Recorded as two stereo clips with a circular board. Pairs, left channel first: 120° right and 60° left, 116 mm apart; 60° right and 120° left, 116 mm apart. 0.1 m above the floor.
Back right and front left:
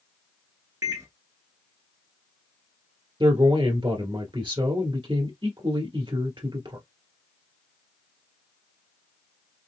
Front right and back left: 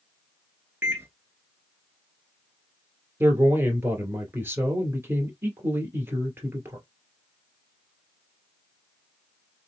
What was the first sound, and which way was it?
A microwave, 75° left.